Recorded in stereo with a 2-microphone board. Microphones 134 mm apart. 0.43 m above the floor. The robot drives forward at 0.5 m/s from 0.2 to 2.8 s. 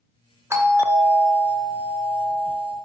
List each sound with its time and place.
0.5 s a doorbell: 20° right (ahead or behind), 1.4 m; by 2.8 s 15° right (ahead or behind), 2 m